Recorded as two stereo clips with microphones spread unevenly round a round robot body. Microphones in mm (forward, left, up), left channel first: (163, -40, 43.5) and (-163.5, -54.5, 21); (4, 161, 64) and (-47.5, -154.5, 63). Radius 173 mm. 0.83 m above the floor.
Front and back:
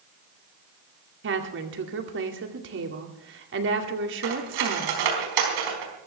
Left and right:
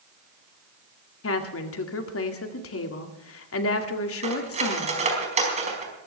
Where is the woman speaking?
125° left, 2 m.